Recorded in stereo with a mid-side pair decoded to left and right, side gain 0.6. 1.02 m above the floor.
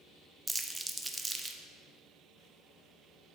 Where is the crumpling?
10° right, 0.6 m.